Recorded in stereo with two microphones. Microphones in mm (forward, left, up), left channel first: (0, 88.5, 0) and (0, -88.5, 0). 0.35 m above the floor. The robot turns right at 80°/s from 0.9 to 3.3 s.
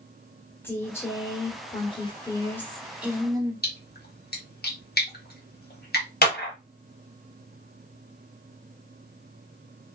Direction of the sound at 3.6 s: 65° left (ahead or behind).